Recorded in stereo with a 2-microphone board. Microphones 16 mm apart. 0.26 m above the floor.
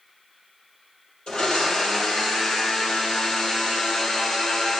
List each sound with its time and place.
1.3 s a blender: 70° left (ahead or behind), 2 m